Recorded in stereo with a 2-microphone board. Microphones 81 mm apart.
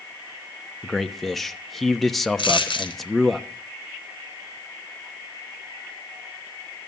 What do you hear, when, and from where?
0.8 s a man speaking: centre (ahead or behind), 1.0 m
2.4 s a dropped coin: 80° left, 3.5 m